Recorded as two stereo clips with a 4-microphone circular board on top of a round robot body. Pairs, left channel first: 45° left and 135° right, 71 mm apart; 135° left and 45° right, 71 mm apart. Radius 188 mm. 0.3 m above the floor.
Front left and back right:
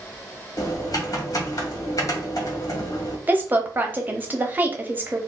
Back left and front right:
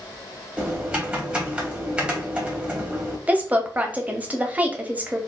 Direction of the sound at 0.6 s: 25° left.